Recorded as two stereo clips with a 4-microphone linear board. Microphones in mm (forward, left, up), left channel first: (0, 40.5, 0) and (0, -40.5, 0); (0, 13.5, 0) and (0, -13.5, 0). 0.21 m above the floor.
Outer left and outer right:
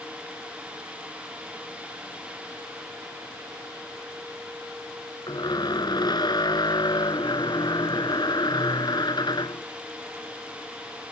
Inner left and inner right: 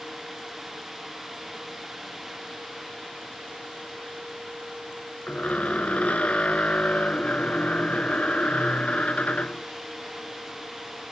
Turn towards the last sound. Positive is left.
turn(degrees=65)  # may be behind; listen again after turning